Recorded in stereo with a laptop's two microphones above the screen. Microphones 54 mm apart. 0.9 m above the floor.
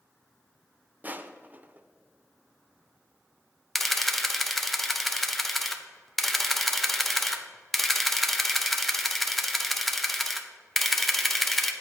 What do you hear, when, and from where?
1.0 s crushing: 30° right (ahead or behind), 0.6 m
3.8 s a camera shutter: 5° left (ahead or behind), 0.7 m